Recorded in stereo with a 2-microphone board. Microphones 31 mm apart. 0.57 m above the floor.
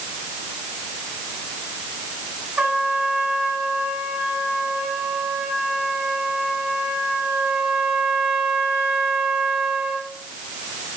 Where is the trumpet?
35° right (ahead or behind), 3.5 m.